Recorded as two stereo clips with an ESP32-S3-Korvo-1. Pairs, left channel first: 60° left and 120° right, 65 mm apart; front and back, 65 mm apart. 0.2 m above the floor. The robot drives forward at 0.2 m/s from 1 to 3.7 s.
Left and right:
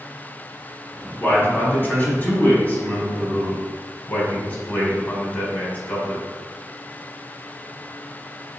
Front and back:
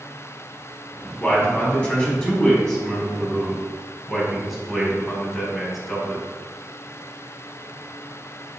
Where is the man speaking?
45° left, 1.3 m; by 6.2 s 90° left, 1.2 m.